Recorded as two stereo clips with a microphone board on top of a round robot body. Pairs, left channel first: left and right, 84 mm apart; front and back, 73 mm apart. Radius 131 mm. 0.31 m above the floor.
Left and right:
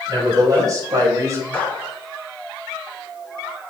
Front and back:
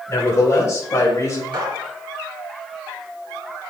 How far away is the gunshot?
About 3 m.